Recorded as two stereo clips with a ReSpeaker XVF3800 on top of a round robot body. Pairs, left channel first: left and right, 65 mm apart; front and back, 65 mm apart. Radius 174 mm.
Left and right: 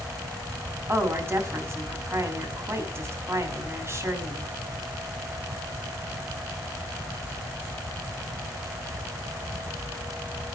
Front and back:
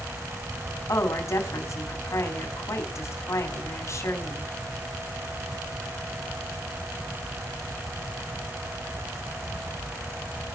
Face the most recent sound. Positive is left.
turn(degrees=-40)